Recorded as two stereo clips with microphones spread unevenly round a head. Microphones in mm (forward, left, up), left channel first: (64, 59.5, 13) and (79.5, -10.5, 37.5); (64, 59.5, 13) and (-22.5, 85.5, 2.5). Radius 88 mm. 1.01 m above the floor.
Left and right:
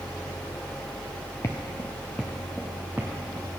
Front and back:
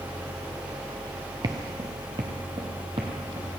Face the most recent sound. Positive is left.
turn(degrees=-140)